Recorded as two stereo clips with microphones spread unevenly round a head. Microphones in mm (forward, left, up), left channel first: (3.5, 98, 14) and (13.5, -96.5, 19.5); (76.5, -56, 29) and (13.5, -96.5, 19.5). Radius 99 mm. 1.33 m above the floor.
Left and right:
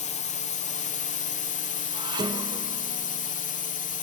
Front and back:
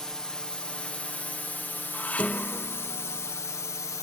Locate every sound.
0.0 s a drone: 120° left; by 4.0 s 75° left
1.9 s dishes clattering: 25° right